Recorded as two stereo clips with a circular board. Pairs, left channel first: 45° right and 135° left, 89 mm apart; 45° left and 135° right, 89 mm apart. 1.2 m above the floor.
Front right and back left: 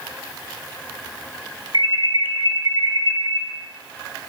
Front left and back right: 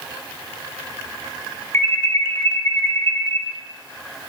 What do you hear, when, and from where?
1.7 s an alarm: 105° left, 1.4 m